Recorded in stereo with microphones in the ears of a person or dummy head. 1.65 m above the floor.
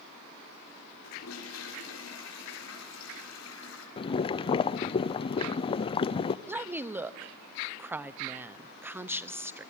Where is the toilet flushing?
85° left, 6 m.